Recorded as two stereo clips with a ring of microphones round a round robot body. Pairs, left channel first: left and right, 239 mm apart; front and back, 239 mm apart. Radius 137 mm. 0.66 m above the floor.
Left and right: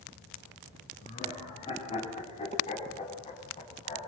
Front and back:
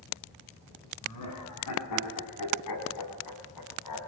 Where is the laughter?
20° left, 5.5 m.